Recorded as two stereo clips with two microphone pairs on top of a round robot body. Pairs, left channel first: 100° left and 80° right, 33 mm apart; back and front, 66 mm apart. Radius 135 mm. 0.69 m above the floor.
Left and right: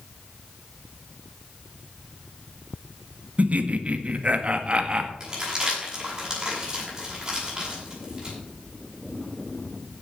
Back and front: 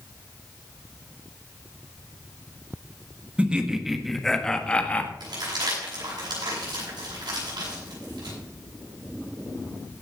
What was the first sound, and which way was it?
Laughter, 75° right.